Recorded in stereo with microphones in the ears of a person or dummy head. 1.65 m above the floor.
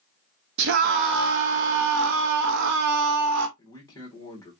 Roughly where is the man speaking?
Left.